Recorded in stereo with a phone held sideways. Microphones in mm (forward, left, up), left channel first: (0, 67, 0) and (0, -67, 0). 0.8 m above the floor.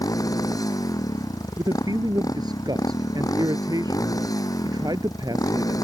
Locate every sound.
0.0 s a motorcycle: 25° left (ahead or behind)
1.6 s a man speaking: 30° right (ahead or behind)